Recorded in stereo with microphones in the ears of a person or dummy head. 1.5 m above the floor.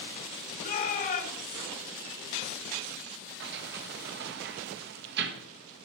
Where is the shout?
50° left (ahead or behind), 4.5 m.